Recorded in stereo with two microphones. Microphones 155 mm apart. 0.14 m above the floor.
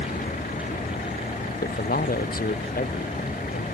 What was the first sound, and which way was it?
A vehicle, 65° left (ahead or behind).